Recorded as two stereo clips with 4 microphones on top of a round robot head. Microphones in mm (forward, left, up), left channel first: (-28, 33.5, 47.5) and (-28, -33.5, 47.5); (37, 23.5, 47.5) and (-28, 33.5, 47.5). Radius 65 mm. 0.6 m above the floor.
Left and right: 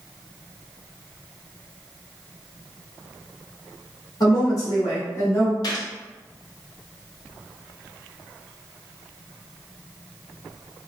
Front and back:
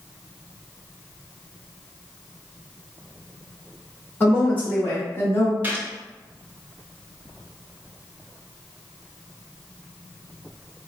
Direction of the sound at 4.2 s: 60° left.